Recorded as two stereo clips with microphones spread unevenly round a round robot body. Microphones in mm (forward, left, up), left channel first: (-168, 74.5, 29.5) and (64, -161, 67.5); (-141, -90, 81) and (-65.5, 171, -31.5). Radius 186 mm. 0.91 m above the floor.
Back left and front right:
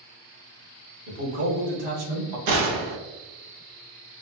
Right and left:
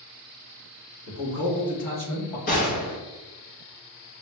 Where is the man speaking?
45° right, 1.8 m; by 2.4 s 60° right, 1.1 m.